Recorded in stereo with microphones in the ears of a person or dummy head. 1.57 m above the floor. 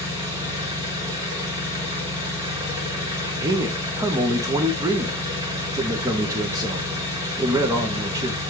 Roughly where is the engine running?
Right.